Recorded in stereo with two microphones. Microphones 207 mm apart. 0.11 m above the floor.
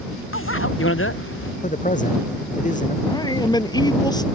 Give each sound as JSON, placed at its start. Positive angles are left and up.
{"t": 0.3, "sound": "a bicycle bell", "side_deg": 85}
{"t": 1.6, "sound": "a man speaking", "side_deg": 40}
{"t": 3.0, "sound": "a man speaking", "side_deg": 20}